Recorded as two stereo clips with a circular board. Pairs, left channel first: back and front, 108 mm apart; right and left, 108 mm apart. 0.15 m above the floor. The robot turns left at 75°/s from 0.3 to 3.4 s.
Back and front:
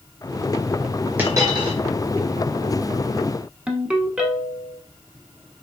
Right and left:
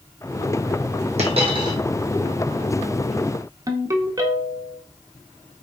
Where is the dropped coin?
75° left, 1.1 m; by 1.8 s 30° left, 1.1 m.